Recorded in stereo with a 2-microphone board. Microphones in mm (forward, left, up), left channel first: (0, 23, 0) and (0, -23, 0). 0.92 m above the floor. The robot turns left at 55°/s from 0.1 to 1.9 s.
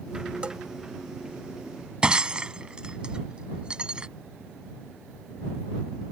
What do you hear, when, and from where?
0.4 s a bell: 25° right (ahead or behind); by 0.6 s 15° right (ahead or behind)
2.0 s breaking glass: 20° right (ahead or behind)